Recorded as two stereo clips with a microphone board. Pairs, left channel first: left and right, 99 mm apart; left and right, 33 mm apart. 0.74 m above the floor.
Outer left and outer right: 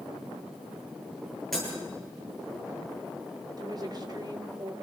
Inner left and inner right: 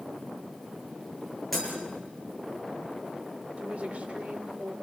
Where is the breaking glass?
Centre (ahead or behind), 9.5 m.